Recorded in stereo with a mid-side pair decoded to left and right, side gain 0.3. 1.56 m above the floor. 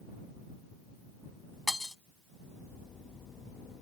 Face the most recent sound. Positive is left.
turn(degrees=20)